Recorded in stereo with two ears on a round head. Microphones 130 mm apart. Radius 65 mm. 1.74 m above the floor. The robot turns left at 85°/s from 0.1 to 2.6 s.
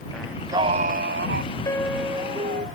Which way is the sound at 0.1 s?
5° left.